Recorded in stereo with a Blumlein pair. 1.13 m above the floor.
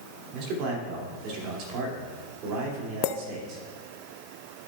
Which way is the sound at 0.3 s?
40° right.